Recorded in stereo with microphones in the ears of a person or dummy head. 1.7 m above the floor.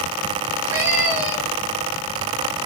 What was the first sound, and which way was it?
A cat meowing, 20° right (ahead or behind).